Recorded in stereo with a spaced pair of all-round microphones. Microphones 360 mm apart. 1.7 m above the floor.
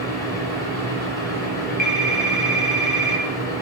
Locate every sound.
0.0 s a fan: 10° left (ahead or behind), 6.5 m
1.8 s a phone ringing: 50° left (ahead or behind), 1.4 m